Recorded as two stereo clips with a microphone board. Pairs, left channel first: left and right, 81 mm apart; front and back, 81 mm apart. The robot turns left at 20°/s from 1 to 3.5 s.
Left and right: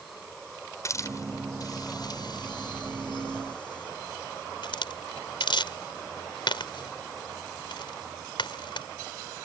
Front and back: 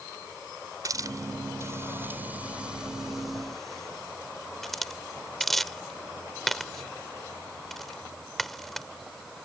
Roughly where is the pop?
No pop in this recording.